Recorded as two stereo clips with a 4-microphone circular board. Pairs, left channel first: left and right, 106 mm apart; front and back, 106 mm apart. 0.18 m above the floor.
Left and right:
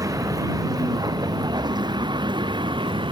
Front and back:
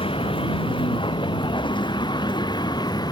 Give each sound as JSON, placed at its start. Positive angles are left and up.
{"t": 0.0, "sound": "a vehicle", "azimuth_deg": -30}